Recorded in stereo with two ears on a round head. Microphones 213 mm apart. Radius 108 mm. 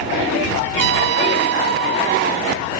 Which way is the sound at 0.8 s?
55° right (ahead or behind).